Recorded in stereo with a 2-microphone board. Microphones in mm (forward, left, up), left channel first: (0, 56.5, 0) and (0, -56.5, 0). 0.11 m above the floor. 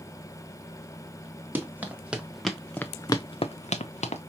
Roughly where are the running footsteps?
Centre.